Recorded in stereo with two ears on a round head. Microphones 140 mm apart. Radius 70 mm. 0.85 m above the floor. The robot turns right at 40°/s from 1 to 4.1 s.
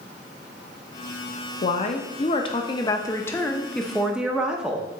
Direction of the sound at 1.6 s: 90° left.